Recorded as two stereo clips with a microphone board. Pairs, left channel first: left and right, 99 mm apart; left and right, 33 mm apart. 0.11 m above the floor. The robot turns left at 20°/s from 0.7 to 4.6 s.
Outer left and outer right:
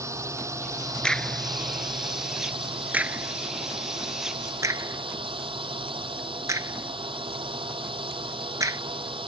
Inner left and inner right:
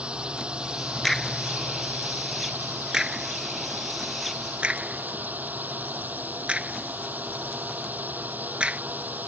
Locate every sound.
0.0 s a drone: 30° right; by 9.3 s 110° right
1.0 s a crack: 10° left (ahead or behind); by 8.8 s 35° right (ahead or behind)